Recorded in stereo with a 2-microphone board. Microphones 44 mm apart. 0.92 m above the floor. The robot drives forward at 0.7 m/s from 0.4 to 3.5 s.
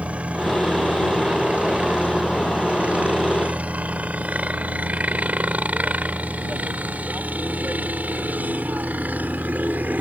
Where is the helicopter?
30° right (ahead or behind); by 10.0 s 40° right (ahead or behind).